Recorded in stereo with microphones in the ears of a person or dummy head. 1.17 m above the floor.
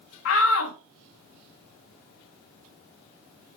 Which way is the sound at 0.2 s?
85° left.